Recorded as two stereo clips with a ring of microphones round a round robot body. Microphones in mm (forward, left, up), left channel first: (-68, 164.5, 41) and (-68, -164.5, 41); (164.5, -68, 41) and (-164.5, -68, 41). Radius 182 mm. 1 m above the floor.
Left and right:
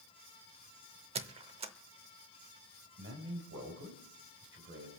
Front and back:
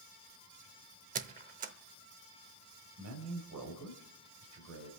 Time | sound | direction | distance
1.1 | a squeak | 140° right | 0.7 m
3.0 | a man speaking | 140° right | 4 m